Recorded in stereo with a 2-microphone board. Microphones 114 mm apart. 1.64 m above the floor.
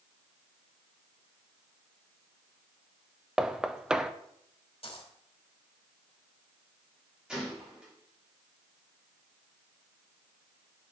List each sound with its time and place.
3.4 s knocking: 5° right (ahead or behind), 0.6 m
4.8 s a dropped coin: 55° left (ahead or behind), 2.5 m
7.3 s a gunshot: 10° right (ahead or behind), 5 m